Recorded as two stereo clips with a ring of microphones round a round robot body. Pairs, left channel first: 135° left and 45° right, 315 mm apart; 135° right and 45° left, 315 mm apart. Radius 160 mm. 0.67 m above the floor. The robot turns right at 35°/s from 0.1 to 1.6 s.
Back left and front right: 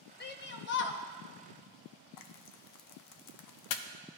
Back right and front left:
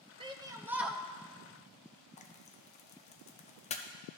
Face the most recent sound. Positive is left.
turn(degrees=155)